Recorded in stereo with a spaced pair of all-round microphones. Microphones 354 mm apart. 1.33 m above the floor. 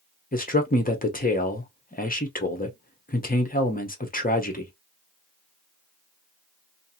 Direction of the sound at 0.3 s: 25° left (ahead or behind).